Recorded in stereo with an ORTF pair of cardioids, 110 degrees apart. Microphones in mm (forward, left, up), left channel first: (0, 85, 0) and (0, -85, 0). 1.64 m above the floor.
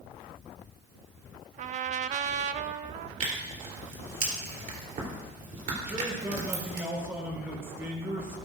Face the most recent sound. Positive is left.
turn(degrees=-15)